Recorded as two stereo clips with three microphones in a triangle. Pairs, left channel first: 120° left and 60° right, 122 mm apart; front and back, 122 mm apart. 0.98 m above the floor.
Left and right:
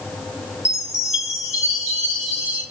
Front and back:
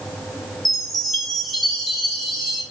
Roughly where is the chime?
Left.